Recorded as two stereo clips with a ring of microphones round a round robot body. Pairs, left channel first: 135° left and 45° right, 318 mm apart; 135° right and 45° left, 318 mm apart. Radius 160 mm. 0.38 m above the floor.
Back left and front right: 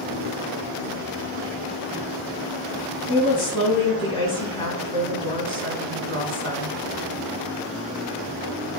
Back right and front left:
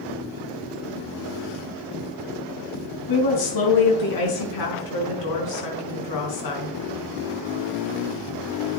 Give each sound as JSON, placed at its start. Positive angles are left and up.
{"t": 3.1, "sound": "a woman speaking", "azimuth_deg": -150, "distance_m": 3.5}